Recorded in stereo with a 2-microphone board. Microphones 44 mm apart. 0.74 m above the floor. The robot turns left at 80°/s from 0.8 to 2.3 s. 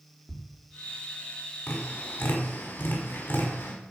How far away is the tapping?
About 5.5 m.